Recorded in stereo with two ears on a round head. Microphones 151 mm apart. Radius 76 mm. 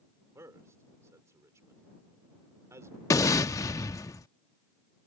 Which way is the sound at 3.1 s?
20° left (ahead or behind).